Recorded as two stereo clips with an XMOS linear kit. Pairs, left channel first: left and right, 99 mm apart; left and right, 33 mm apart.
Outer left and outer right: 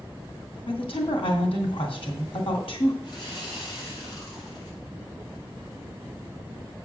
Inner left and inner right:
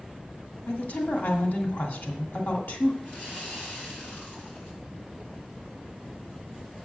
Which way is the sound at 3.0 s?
50° left (ahead or behind).